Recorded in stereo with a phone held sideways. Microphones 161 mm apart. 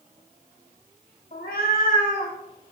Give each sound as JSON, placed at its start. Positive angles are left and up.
{"t": 1.3, "sound": "a cat meowing", "side_deg": 60, "distance_m": 0.5}